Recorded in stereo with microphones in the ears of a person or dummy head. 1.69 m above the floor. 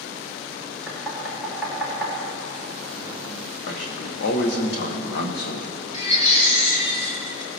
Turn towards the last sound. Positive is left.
turn(degrees=35)  # may be behind; listen again after turning